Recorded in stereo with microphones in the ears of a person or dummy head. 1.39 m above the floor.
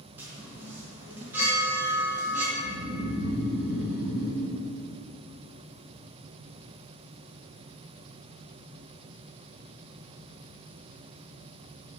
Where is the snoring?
20° right (ahead or behind), 1.8 m.